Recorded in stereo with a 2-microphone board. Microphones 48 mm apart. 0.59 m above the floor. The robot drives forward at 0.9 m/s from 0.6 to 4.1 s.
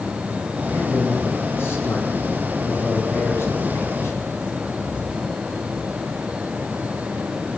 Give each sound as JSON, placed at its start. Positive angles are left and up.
{"t": 0.7, "sound": "a man speaking", "side_deg": 55, "distance_m": 7.0}